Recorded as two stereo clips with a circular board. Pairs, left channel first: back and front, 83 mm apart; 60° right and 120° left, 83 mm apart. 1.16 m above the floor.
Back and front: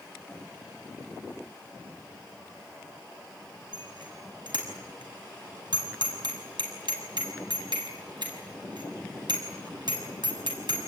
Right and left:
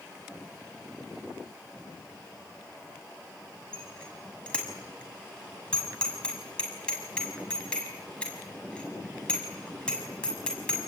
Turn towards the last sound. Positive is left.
turn(degrees=15)